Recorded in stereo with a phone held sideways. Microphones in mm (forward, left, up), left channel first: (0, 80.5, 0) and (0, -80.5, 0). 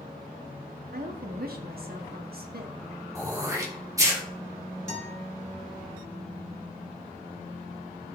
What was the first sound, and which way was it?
A woman speaking, 75° right (ahead or behind).